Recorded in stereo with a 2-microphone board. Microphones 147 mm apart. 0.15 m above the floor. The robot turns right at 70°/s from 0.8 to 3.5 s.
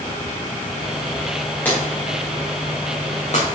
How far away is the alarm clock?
No alarm clock in this recording.